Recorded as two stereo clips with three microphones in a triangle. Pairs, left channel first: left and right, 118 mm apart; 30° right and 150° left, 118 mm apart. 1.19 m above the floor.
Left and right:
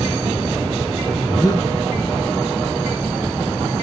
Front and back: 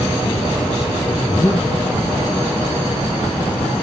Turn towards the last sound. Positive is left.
turn(degrees=30)